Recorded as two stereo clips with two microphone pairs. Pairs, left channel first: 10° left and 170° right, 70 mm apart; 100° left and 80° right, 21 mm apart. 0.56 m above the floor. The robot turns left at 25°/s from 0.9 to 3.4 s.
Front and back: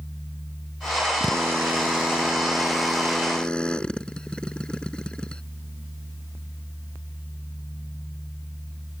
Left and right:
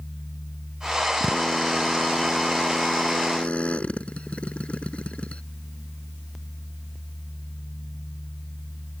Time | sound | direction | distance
1.2 | a drill | 140° left | ?